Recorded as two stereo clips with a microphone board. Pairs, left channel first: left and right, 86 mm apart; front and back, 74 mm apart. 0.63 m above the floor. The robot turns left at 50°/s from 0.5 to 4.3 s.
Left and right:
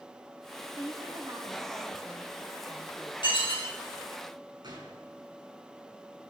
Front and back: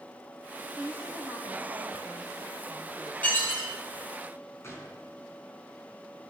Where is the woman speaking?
110° right, 2.5 m; by 3.1 s 130° left, 2.5 m.